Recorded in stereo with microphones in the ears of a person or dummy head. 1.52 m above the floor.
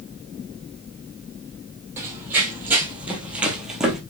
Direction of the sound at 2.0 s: 15° right (ahead or behind).